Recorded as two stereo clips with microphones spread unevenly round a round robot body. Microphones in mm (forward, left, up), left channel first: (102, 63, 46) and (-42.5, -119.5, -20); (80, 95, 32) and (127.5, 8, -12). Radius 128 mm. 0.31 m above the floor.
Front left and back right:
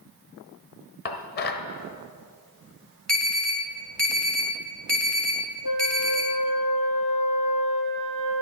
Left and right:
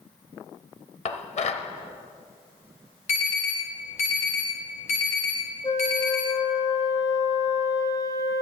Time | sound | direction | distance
1.1 | dishes clattering | 110° left | 0.9 m
3.1 | an alarm | 150° left | 3 m
5.6 | a flute | 75° left | 2.5 m